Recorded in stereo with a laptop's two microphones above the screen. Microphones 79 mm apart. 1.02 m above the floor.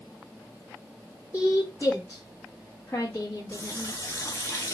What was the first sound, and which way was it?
A woman speaking, 30° left (ahead or behind).